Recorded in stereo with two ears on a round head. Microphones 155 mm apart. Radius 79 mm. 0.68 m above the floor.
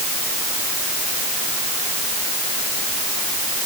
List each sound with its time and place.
Only background noise.